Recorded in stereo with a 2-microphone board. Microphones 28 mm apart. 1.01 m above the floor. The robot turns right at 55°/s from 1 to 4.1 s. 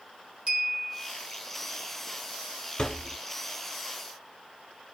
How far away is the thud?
About 0.8 m.